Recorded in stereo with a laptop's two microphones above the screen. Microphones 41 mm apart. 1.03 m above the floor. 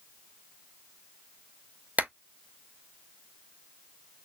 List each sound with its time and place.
2.0 s a clap: 40° right (ahead or behind), 0.6 m